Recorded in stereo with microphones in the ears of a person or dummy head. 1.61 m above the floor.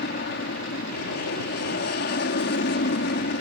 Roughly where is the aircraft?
Left.